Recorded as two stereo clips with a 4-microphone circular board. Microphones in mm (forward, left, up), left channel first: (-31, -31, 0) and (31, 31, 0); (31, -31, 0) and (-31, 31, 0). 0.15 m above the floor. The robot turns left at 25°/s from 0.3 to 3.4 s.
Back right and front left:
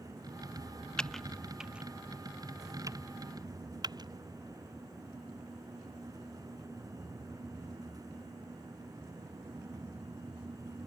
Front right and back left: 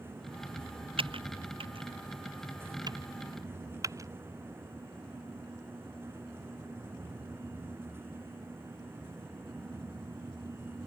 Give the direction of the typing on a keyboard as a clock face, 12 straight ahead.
7 o'clock.